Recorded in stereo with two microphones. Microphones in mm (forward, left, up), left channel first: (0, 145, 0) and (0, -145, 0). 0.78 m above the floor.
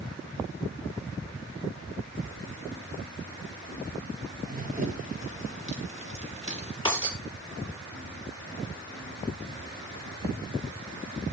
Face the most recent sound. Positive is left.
turn(degrees=15)  # may be behind; listen again after turning